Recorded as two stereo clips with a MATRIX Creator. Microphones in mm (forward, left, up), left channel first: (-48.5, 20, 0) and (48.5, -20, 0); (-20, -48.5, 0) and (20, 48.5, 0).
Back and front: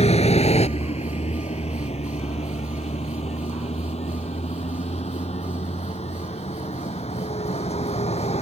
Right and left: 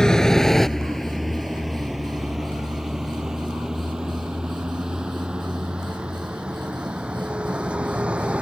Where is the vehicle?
165° left; by 8.4 s 150° left.